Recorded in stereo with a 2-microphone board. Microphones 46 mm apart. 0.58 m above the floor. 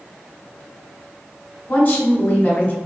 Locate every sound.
1.7 s a woman speaking: 25° left (ahead or behind), 1.6 m